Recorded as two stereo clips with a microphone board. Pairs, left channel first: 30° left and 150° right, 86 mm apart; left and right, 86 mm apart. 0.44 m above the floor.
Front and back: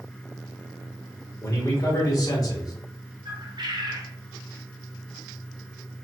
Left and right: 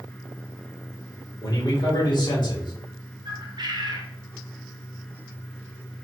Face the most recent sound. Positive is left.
turn(degrees=-120)